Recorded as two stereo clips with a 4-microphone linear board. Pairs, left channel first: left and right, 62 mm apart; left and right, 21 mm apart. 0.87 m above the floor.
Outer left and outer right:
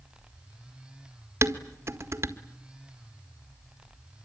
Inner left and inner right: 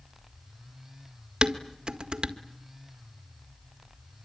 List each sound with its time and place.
1.4 s dishes clattering: 50° right (ahead or behind), 1.7 m